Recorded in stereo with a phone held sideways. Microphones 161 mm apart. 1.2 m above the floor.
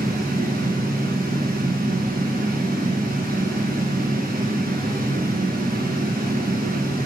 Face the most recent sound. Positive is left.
turn(degrees=-65)  # may be behind; listen again after turning